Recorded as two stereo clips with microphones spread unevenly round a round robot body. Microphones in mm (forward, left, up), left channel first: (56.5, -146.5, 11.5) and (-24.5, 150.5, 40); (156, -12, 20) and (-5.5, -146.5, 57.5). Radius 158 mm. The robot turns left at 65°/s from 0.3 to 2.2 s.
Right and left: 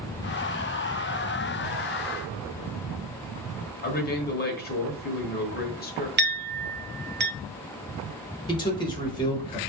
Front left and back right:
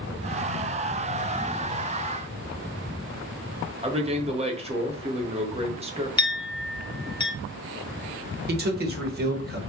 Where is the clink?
65° left, 0.6 m.